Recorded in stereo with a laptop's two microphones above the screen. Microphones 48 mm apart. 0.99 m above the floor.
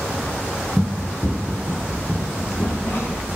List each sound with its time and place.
0.8 s running footsteps: 10° left (ahead or behind), 1.2 m; by 3.2 s 60° left (ahead or behind), 3 m